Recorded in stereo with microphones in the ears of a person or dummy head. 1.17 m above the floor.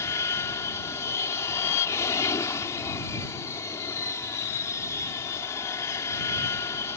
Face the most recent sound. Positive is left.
turn(degrees=15)  # may be behind; listen again after turning